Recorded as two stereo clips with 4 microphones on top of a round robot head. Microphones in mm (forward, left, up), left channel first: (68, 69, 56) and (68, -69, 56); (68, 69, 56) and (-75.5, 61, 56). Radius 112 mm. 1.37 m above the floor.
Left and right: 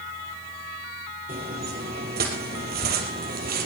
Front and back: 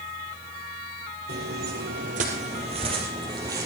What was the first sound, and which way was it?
Footsteps, 140° right.